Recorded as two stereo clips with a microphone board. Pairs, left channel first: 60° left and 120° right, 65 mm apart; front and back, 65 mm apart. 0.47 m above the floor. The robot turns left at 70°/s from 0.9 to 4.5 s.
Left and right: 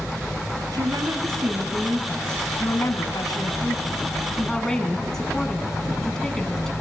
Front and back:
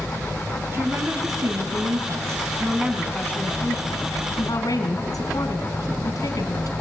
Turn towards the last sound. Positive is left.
turn(degrees=-20)